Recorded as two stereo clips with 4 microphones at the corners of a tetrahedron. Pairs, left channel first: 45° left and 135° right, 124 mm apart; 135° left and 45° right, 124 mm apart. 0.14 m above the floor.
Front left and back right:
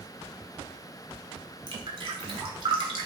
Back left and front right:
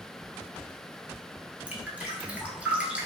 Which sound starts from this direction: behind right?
Dripping, at 1.7 s.